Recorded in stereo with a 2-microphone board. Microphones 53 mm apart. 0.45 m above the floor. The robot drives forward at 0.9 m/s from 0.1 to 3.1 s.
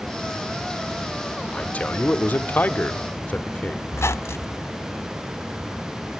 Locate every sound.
1.5 s a man speaking: 25° left (ahead or behind), 1.3 m; by 3.8 s 30° left (ahead or behind), 1.0 m
3.9 s a squeak: 55° left (ahead or behind), 0.6 m